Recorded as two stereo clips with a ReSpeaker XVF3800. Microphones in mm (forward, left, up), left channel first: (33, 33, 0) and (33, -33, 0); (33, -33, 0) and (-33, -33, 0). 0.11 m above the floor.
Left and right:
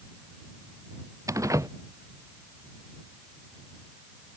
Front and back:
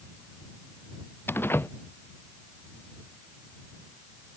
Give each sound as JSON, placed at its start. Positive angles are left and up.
{"t": 1.3, "sound": "a door slam", "azimuth_deg": -55}